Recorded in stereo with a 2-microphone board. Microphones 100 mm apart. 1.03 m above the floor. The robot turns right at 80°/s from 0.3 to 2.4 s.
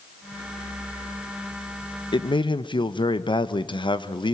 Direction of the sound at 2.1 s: 55° left (ahead or behind).